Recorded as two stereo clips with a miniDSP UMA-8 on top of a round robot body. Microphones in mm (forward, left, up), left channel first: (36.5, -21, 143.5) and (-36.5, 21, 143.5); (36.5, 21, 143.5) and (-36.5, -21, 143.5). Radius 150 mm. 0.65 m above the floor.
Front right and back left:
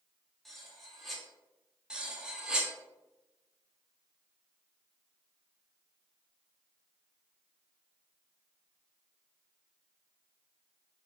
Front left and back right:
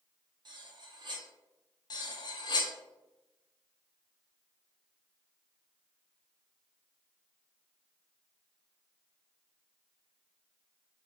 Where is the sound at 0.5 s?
120° right, 0.9 m.